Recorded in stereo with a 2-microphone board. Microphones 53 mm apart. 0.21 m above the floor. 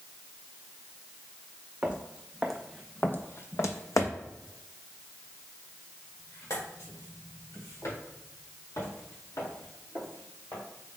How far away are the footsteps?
About 0.7 m.